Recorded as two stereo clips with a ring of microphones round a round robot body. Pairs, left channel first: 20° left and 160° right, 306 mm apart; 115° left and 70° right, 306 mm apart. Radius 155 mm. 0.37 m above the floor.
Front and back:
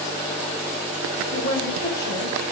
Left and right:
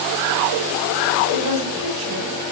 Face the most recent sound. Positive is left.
turn(degrees=-30)